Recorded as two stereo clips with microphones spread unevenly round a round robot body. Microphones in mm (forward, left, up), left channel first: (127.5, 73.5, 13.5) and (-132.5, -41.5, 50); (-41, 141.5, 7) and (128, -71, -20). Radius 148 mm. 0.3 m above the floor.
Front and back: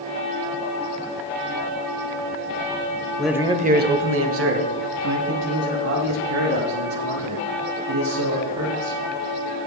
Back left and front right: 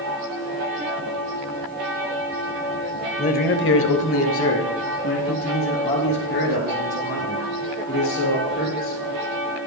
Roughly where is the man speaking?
Left.